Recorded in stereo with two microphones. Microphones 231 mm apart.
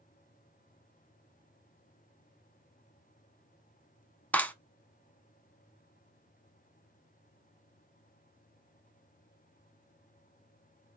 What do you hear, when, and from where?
4.3 s a clap: 5° left (ahead or behind), 0.8 m